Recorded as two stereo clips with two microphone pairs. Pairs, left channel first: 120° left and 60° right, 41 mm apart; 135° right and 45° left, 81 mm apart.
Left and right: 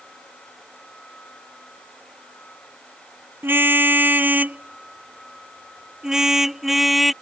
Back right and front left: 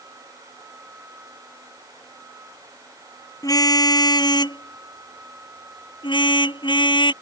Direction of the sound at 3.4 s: 95° right.